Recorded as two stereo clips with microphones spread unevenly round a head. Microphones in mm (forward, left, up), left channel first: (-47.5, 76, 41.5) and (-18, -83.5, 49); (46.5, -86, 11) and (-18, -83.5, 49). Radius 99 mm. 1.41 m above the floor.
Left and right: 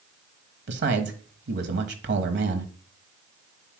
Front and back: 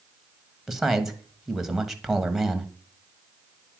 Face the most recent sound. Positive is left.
turn(degrees=-85)